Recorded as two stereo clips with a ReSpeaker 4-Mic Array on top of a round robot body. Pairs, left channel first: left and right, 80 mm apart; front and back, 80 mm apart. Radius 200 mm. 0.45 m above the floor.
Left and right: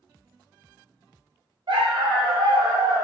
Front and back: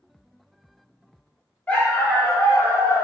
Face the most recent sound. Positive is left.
turn(degrees=-55)